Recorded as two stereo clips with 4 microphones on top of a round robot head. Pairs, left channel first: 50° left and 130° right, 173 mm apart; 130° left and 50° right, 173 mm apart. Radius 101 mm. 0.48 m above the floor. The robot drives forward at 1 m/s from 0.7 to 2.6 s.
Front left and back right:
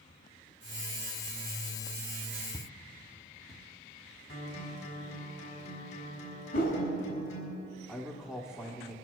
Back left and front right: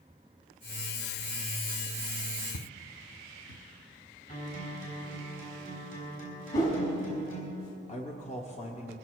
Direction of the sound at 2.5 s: 130° left.